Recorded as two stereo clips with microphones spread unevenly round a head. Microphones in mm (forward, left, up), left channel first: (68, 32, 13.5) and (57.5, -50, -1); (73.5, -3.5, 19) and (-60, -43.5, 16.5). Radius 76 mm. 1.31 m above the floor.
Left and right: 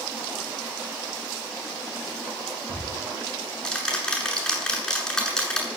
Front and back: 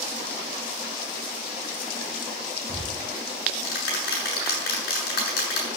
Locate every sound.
2.7 s ticking: 5° left, 8 m